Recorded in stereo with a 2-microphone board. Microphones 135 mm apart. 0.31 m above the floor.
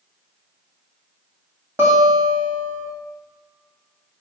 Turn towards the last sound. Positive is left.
turn(degrees=-15)  # may be behind; listen again after turning